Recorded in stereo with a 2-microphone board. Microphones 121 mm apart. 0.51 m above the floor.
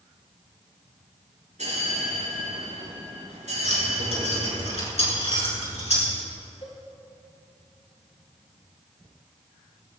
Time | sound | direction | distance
1.6 | a bell | 70° right (ahead or behind) | 5.5 m
3.6 | keys jangling | 60° left (ahead or behind) | 4.5 m
6.6 | a cowbell | 55° left (ahead or behind) | 5.5 m